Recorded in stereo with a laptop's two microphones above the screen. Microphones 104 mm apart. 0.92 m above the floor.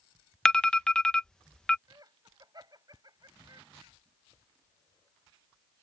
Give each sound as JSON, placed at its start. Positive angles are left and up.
{"t": 0.5, "sound": "an alarm", "side_deg": 10}
{"t": 1.9, "sound": "laughter", "side_deg": -40}